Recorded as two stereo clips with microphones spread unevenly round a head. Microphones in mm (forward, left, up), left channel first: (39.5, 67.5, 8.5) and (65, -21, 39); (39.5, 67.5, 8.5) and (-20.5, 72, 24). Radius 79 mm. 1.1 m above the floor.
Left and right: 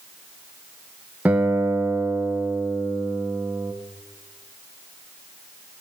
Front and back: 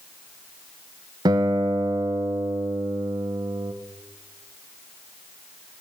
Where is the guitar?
160° right, 0.6 m.